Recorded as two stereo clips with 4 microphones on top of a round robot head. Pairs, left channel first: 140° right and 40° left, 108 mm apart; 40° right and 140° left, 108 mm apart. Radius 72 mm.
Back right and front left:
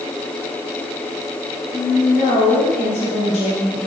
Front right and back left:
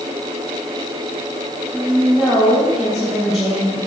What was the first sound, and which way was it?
A woman speaking, 130° right.